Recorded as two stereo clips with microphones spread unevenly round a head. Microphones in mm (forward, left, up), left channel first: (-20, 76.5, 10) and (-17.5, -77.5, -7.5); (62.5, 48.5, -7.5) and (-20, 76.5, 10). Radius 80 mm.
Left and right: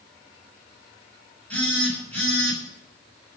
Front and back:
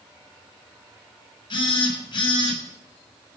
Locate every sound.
1.5 s a phone buzzing: 10° left, 6.5 m